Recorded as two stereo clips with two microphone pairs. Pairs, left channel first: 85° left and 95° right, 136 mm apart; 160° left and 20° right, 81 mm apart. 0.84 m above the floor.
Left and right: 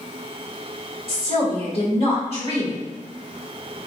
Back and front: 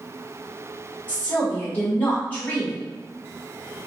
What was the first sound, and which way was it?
A woman speaking, 105° left.